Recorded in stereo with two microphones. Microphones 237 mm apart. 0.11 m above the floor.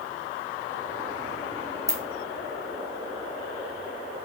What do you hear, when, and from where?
1.9 s a ringtone: 15° right (ahead or behind), 1.6 m